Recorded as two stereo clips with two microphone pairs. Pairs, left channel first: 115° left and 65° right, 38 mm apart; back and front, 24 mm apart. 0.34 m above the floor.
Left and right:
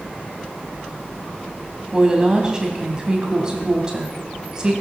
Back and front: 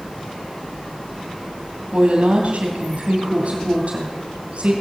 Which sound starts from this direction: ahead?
A woman speaking, at 1.9 s.